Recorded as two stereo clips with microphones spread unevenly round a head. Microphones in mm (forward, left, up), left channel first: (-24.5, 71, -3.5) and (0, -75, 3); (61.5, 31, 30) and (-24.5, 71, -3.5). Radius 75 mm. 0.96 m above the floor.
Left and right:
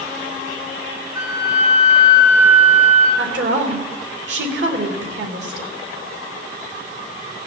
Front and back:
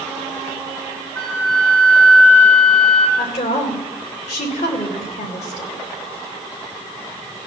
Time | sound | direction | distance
1.1 | a flute | 150° right | 8.5 m
3.2 | a woman speaking | 60° right | 3 m